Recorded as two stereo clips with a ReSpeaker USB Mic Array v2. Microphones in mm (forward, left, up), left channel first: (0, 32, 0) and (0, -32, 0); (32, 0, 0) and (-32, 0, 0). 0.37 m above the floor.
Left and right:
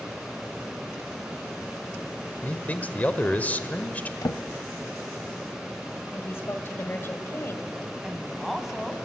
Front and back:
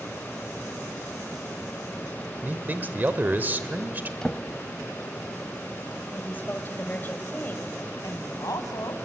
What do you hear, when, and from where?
2.4 s a man speaking: 140° left, 1.1 m
4.2 s a drawer: 80° left, 0.5 m
6.1 s a woman speaking: 50° left, 1.8 m
8.0 s a woman speaking: straight ahead, 2 m